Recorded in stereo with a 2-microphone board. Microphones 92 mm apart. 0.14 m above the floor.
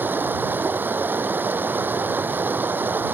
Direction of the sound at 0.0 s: 20° right (ahead or behind).